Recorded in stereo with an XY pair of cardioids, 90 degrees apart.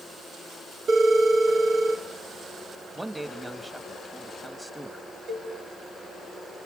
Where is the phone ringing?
70° right, 2.5 m.